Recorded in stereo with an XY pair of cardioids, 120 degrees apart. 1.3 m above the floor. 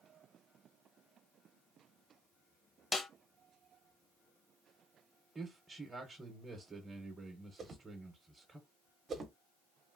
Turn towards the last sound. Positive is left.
turn(degrees=-40)